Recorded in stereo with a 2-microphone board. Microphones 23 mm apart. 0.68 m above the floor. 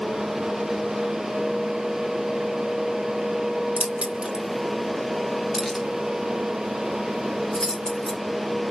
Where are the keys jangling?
75° right (ahead or behind), 0.8 m; by 8.2 s 25° left (ahead or behind), 3 m.